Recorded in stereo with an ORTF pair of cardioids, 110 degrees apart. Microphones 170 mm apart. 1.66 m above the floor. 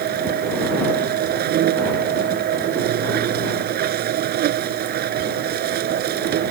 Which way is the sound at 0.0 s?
65° right.